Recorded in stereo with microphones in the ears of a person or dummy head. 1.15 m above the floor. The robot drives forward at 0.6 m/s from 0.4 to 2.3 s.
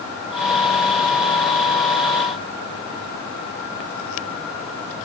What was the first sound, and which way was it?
Only background noise.